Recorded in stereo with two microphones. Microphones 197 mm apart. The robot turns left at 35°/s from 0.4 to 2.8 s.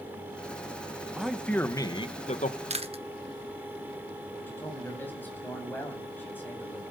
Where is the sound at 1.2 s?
175° right, 1.2 m; by 2.6 s 135° left, 1.2 m.